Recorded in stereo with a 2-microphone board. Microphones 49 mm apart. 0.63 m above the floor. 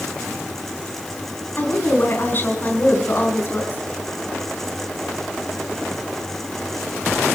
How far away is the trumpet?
No trumpet in this recording.